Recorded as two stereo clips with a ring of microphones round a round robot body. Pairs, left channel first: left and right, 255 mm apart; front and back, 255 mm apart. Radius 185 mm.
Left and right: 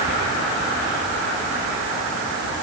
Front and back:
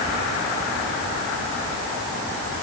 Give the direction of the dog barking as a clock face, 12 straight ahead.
No dog barking in this recording.